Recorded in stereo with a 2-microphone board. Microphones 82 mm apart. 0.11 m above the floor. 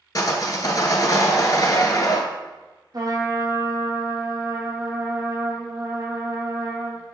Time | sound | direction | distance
0.1 | sawing | 50° left (ahead or behind) | 0.7 m
2.9 | a trumpet | 50° right (ahead or behind) | 1.1 m